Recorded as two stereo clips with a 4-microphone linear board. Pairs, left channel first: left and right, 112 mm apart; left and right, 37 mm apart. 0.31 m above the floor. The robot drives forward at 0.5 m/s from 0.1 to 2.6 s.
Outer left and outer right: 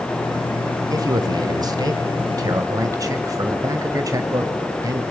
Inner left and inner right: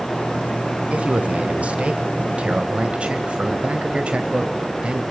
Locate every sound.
0.9 s a man speaking: 35° right (ahead or behind), 1.1 m; by 5.0 s 30° right (ahead or behind), 1.2 m